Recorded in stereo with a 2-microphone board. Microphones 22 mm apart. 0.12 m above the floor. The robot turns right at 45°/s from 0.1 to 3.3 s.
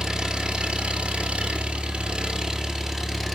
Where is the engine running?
145° right, 1.5 m; by 3.4 s 5° right, 1.5 m.